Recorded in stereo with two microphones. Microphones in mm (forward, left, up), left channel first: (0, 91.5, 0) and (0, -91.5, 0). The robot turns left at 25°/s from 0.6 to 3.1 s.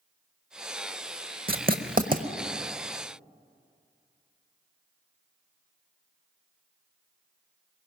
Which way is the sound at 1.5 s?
60° right (ahead or behind).